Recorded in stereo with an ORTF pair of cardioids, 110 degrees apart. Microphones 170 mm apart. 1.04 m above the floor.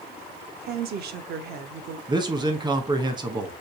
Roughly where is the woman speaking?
Ahead right.